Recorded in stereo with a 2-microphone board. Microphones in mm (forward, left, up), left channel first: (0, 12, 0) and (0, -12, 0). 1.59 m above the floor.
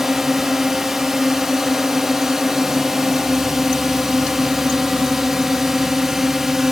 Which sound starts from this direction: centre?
A drone, at 0.0 s.